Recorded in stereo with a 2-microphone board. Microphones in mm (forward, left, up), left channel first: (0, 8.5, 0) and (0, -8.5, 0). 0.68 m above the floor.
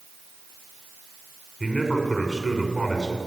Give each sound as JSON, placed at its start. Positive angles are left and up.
{"t": 1.6, "sound": "a man speaking", "side_deg": 10, "distance_m": 6.5}